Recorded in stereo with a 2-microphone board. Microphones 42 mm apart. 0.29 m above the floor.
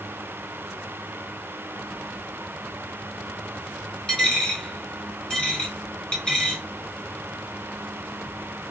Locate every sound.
4.1 s a dropped coin: 20° left (ahead or behind), 1.2 m